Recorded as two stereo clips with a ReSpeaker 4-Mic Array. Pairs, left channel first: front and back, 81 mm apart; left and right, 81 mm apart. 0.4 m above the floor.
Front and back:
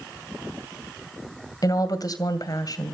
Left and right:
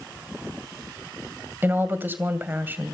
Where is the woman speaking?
30° right, 2 m.